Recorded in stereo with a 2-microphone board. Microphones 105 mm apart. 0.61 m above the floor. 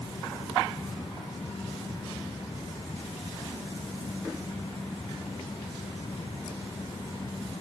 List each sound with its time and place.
Only background noise.